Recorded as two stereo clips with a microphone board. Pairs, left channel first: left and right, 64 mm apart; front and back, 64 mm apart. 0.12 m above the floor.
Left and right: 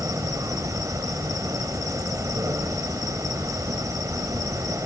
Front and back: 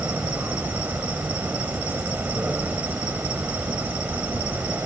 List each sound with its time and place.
0.0 s an insect: 110° right, 4 m